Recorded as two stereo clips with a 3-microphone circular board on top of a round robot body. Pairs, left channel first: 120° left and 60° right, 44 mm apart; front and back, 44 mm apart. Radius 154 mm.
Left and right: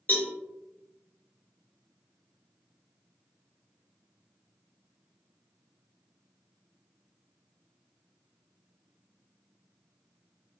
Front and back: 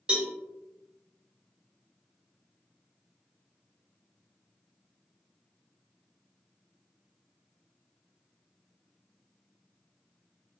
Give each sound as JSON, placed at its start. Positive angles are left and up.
{"t": 0.1, "sound": "a cowbell", "azimuth_deg": 125, "distance_m": 1.8}